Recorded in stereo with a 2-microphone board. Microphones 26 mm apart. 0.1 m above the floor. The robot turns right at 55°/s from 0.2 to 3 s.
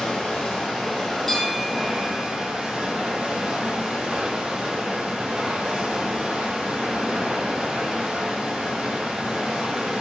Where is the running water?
105° left, 1.9 m; by 10.0 s 100° right, 1.9 m.